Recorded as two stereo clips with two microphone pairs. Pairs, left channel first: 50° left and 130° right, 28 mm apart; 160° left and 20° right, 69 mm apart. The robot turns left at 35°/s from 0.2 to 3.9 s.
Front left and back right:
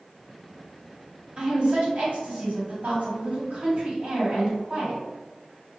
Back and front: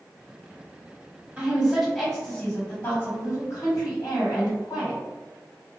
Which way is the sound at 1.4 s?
90° right.